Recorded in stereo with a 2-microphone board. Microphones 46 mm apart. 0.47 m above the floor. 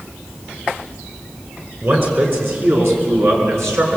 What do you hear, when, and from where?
1.8 s a man speaking: 50° right (ahead or behind), 6 m; by 4.0 s 80° right, 6.5 m